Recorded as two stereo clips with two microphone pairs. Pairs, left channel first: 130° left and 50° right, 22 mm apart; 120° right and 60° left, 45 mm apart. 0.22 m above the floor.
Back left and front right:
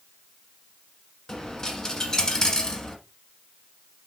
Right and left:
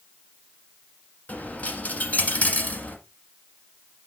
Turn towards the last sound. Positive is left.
turn(degrees=-170)